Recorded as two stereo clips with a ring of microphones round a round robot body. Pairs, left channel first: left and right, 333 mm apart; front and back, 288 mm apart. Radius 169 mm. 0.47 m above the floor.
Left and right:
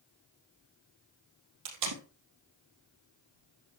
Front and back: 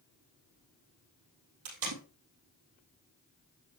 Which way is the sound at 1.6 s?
130° right.